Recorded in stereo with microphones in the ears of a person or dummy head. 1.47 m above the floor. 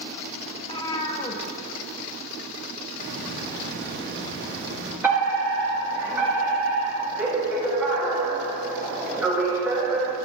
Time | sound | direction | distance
0.6 | a cat meowing | 20° left (ahead or behind) | 1.2 m
3.0 | a hiss | 60° right (ahead or behind) | 1.8 m
5.0 | a fire alarm | 15° right (ahead or behind) | 3.5 m